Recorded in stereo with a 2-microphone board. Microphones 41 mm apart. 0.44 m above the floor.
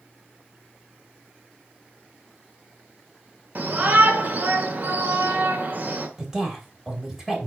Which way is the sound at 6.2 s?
15° right (ahead or behind).